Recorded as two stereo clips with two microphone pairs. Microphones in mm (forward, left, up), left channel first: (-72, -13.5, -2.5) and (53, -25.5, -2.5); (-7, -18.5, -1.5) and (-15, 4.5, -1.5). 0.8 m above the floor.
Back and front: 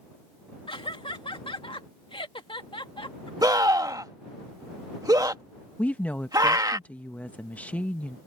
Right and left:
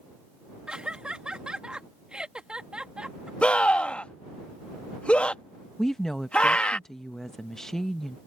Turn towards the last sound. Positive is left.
turn(degrees=-125)